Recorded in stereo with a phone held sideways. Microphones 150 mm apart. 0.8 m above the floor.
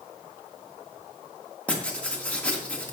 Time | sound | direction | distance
1.7 | writing | 10° left (ahead or behind) | 2 m